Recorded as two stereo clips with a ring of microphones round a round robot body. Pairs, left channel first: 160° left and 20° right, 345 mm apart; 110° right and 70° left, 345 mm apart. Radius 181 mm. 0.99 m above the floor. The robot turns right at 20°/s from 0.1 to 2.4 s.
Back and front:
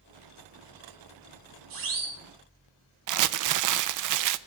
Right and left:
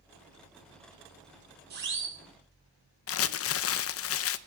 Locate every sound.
1.7 s a siren: 5° left, 3.5 m; by 2.2 s 15° left, 3.5 m
3.1 s crumpling: 60° right, 0.7 m